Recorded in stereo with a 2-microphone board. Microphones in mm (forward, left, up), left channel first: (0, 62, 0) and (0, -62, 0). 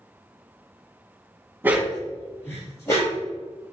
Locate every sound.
1.6 s a dog barking: 20° right (ahead or behind), 0.6 m; by 3.2 s 25° left (ahead or behind), 2.5 m